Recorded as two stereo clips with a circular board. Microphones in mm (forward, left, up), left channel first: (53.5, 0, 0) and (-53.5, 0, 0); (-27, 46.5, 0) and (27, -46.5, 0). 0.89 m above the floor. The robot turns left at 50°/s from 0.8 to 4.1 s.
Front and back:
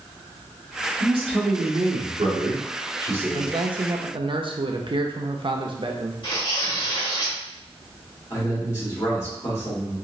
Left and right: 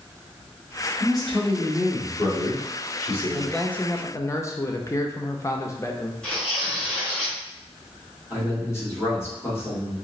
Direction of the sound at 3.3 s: 150° right.